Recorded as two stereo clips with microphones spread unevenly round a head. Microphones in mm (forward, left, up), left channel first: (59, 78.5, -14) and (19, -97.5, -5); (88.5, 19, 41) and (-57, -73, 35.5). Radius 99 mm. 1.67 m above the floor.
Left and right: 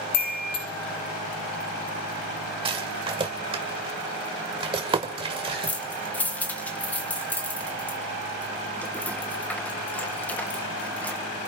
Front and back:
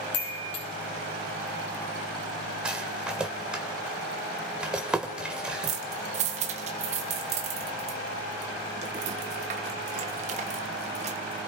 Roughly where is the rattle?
Ahead right.